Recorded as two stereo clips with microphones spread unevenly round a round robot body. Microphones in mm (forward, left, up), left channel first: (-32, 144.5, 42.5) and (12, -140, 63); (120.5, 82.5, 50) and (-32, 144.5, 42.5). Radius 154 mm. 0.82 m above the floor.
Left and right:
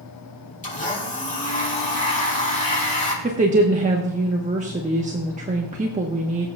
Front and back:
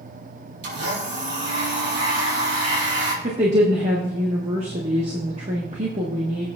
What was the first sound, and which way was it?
A blender, 165° left.